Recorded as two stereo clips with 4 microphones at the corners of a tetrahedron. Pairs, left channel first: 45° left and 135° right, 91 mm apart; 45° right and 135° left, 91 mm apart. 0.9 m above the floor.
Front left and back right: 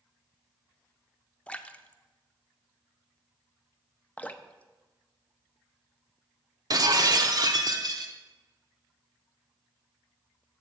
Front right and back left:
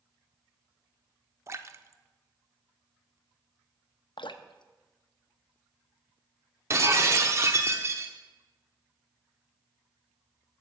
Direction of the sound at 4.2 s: 25° right.